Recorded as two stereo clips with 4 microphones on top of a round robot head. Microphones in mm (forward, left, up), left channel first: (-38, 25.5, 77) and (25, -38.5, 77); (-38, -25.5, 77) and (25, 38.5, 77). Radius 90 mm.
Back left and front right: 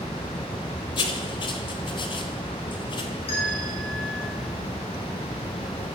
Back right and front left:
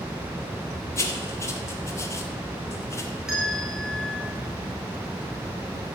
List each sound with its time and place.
1.0 s writing: 165° left, 1.5 m
3.3 s a bell: 130° left, 4.5 m